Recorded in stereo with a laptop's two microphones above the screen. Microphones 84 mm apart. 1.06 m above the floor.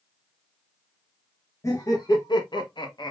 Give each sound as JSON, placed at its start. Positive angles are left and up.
{"t": 1.6, "sound": "laughter", "side_deg": 40, "distance_m": 0.9}